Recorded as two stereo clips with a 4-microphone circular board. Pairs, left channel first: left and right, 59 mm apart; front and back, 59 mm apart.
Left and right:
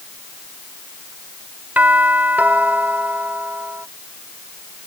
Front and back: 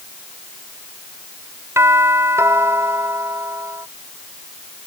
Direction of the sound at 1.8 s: 150° right.